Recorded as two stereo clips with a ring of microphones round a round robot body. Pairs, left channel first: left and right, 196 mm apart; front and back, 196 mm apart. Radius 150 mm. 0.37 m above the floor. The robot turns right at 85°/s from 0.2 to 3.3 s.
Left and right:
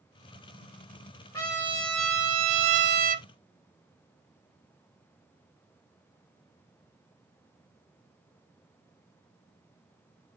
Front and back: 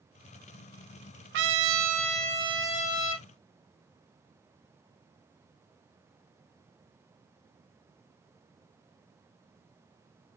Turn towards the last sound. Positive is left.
turn(degrees=-25)